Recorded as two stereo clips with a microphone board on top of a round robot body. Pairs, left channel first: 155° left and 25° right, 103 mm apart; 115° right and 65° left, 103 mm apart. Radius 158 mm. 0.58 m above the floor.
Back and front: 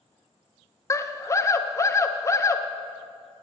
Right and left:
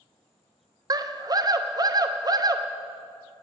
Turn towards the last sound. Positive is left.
turn(degrees=105)